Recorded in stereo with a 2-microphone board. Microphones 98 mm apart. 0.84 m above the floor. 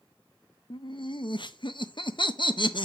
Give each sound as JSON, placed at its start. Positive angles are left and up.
{"t": 0.7, "sound": "laughter", "side_deg": 55, "distance_m": 0.6}